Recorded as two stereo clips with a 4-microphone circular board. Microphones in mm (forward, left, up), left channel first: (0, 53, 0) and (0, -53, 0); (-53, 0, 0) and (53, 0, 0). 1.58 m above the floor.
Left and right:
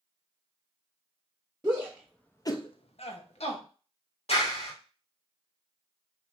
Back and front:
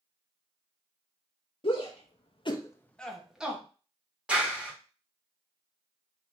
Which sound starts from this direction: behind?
A shout, at 1.6 s.